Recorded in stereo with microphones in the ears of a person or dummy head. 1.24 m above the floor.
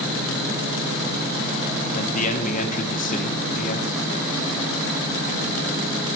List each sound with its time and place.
1.9 s a man speaking: 35° left (ahead or behind), 1.3 m